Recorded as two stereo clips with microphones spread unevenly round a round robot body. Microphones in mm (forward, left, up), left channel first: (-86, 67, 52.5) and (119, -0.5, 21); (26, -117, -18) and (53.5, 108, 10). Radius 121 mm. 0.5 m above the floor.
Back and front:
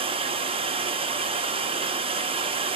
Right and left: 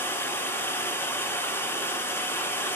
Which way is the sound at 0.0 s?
35° right.